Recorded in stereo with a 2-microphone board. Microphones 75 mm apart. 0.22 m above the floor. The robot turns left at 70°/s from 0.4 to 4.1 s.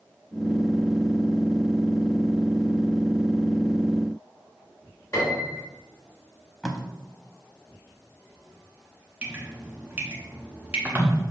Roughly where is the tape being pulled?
Centre.